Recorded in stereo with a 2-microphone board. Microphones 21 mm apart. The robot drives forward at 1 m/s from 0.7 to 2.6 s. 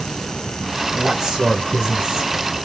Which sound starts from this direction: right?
A man speaking, at 0.9 s.